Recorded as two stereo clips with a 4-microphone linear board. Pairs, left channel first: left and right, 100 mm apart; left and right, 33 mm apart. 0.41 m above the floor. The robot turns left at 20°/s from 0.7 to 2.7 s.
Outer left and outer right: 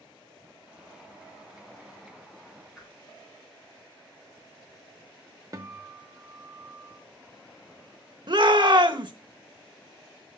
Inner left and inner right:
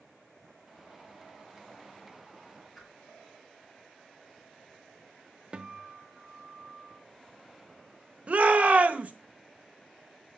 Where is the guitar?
40° right (ahead or behind), 0.9 m.